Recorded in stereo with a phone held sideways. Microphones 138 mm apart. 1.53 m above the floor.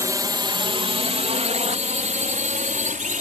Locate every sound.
0.0 s a drone: 25° right (ahead or behind); by 3.2 s 75° right (ahead or behind)